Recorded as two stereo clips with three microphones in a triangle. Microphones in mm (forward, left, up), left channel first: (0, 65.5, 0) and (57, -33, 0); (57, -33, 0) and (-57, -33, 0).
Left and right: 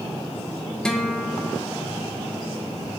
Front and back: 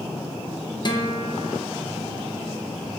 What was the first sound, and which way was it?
A guitar, 35° left.